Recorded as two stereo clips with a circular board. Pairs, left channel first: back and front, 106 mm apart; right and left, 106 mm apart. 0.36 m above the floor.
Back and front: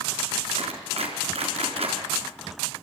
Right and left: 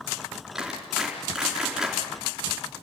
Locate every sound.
0.6 s a clap: 5° left, 4 m